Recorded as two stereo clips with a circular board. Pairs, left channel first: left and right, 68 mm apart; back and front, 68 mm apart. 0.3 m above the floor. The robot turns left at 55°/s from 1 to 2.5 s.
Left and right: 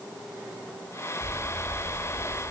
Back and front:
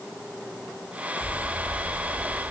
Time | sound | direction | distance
1.2 | an explosion | 175° left | 6.5 m